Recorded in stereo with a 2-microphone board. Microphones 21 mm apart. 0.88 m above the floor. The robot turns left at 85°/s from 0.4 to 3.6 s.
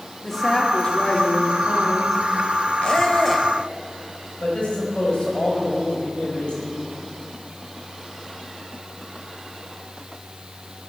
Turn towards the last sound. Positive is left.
turn(degrees=50)  # may be behind; listen again after turning